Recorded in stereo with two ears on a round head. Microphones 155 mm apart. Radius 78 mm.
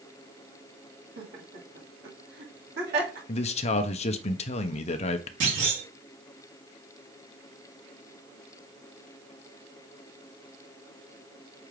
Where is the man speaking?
40° left (ahead or behind), 0.5 m.